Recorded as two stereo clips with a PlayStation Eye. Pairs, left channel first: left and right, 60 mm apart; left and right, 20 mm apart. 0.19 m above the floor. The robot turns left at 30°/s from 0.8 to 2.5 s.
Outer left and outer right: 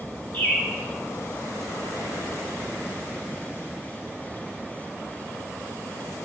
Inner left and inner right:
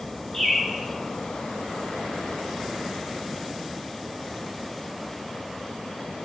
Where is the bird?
30° left (ahead or behind), 1.5 m.